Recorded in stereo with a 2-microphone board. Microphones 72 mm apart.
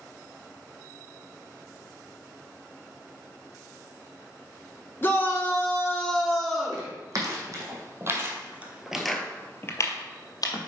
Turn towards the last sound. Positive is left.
turn(degrees=60)  # may be behind; listen again after turning